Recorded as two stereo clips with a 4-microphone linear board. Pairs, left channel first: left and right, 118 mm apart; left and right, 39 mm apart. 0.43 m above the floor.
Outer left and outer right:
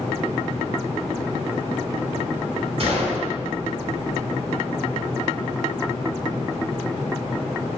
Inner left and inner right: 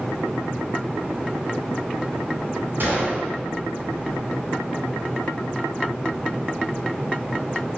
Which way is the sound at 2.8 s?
55° right (ahead or behind).